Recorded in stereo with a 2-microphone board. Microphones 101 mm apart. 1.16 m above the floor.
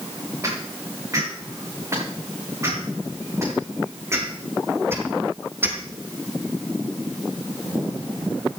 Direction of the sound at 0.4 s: 30° right (ahead or behind).